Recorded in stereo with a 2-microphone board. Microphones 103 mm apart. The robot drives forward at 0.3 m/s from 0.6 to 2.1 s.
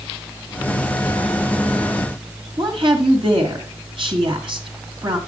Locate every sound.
2.6 s a woman speaking: 55° right (ahead or behind), 2.5 m